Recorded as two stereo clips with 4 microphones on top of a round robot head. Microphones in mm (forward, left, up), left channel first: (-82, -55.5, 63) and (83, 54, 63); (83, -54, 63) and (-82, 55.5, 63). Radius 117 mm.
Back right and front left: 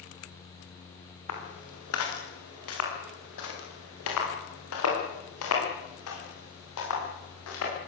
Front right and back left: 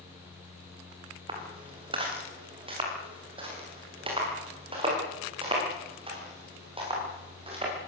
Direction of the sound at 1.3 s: 145° right.